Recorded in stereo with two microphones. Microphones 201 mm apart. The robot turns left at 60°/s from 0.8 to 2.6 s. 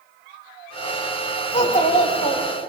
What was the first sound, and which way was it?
A child speaking, 115° left.